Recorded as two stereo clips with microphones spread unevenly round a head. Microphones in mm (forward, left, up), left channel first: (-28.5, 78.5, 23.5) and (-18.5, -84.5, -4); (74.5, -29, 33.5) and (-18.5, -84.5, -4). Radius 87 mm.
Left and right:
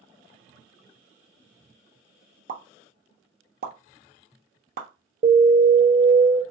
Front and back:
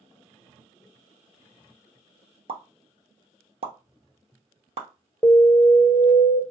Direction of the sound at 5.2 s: 35° right.